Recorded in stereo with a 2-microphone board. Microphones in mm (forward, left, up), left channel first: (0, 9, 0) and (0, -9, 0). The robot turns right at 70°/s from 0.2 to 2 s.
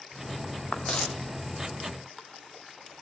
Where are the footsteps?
50° left (ahead or behind), 1.3 m; by 1.1 s 75° left (ahead or behind), 1.3 m.